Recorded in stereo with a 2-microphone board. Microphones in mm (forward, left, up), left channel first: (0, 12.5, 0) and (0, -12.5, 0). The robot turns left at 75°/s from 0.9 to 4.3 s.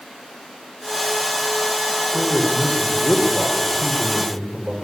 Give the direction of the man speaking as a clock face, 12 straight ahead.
8 o'clock.